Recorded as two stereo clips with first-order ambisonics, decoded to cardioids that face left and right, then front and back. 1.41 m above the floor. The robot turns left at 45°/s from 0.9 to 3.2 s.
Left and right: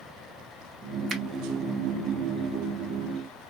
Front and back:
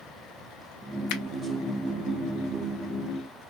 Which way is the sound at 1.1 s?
15° right.